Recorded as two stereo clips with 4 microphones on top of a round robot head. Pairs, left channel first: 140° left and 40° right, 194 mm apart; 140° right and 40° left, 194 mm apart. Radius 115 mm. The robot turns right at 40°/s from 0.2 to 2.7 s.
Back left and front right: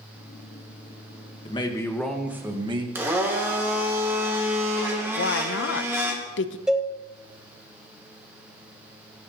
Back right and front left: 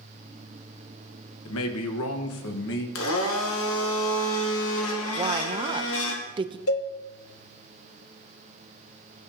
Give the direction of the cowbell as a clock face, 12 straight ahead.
4 o'clock.